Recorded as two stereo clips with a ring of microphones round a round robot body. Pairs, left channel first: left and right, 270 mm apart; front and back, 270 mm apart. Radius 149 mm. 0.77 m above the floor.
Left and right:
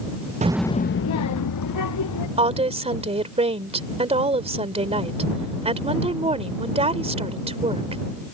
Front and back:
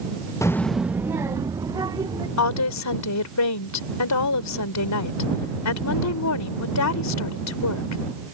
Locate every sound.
0.4 s a child speaking: 65° right; by 2.3 s 105° left
2.4 s a woman speaking: 20° right